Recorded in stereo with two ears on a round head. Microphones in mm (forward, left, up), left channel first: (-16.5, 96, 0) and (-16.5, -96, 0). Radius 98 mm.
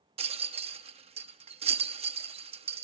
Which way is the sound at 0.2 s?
30° right (ahead or behind).